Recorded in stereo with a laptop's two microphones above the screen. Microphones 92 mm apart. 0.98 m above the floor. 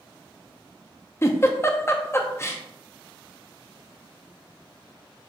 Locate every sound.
1.2 s a giggle: 30° left (ahead or behind), 0.6 m